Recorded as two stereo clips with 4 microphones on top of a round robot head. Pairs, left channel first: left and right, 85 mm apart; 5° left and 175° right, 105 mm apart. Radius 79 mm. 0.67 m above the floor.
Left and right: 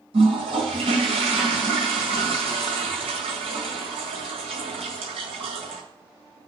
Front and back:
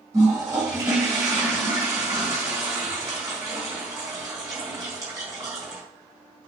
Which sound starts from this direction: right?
A toilet flushing, at 0.1 s.